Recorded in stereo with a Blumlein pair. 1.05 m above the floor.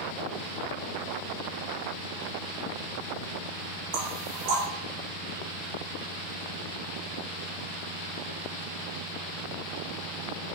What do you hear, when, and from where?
3.9 s knocking: 45° right, 1.3 m